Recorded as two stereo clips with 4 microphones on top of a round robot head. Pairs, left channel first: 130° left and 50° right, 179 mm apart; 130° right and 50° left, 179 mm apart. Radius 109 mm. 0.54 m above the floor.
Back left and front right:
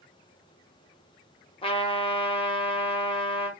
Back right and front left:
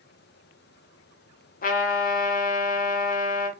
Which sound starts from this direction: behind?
A trumpet, at 1.6 s.